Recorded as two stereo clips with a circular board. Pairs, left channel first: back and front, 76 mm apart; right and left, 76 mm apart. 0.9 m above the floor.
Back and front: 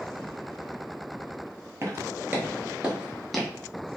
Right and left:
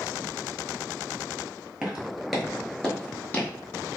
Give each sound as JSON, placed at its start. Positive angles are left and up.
{"t": 1.8, "sound": "footsteps", "azimuth_deg": 15, "distance_m": 1.1}